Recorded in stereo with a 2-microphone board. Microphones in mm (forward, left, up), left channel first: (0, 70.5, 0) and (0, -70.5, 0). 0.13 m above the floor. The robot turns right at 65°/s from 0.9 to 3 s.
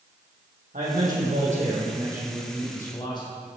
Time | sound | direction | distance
0.7 | a man speaking | 105° right | 5.5 m